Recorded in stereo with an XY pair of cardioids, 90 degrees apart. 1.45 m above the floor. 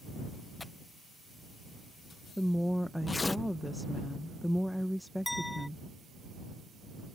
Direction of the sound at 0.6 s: 20° left.